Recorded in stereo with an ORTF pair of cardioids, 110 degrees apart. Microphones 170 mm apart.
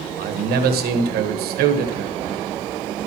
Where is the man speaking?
70° right, 1.3 m.